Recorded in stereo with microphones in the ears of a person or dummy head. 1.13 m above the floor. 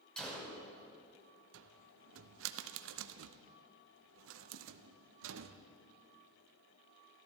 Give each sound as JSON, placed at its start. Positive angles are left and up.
{"t": 0.2, "sound": "a gunshot", "side_deg": 5, "distance_m": 2.5}
{"t": 1.5, "sound": "a cupboard door", "side_deg": -70, "distance_m": 0.6}